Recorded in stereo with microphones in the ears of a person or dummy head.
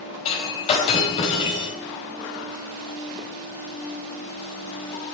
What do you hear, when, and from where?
0.2 s breaking glass: 30° left (ahead or behind), 3.5 m